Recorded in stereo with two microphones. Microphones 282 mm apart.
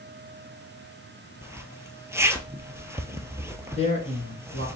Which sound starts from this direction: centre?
A zipper, at 1.4 s.